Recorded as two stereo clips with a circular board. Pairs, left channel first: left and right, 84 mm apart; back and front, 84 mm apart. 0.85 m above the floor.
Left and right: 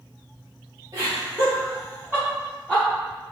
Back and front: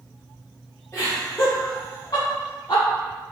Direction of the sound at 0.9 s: 125° right.